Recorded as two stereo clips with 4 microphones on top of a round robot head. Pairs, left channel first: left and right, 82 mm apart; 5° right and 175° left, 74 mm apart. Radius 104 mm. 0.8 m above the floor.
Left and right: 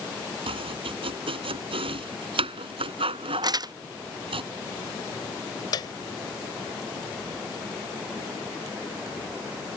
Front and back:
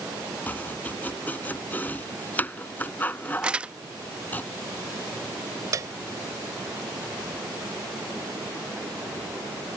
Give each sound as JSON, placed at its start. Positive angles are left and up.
{"t": 0.5, "sound": "chopping", "azimuth_deg": -75}
{"t": 3.4, "sound": "crumpling", "azimuth_deg": -110}
{"t": 5.7, "sound": "a piano", "azimuth_deg": 130}